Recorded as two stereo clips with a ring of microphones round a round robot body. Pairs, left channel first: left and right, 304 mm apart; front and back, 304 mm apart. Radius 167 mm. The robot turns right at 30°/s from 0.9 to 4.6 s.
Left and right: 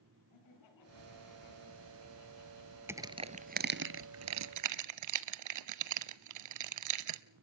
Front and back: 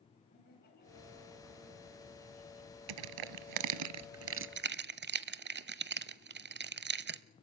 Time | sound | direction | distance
0.3 | laughter | 65° left | 3.5 m
2.9 | crushing | 175° right | 0.8 m